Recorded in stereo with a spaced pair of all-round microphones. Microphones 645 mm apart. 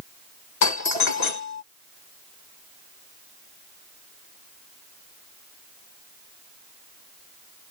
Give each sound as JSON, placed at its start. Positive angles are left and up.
{"t": 0.6, "sound": "a doorbell", "side_deg": 80}